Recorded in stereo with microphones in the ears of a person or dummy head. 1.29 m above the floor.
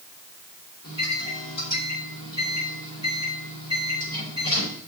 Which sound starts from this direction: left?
A microwave, at 0.8 s.